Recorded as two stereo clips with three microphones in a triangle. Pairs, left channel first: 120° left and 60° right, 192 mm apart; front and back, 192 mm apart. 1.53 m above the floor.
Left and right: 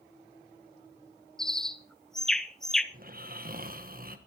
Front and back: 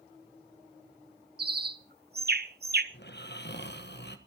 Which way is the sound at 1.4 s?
150° right.